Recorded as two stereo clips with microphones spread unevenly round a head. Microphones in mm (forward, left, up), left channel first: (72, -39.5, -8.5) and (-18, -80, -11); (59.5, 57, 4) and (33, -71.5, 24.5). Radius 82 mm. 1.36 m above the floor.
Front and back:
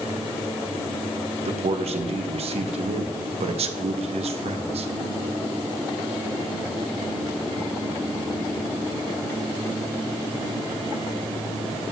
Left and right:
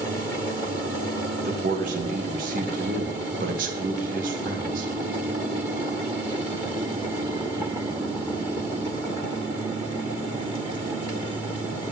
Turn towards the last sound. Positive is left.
turn(degrees=-145)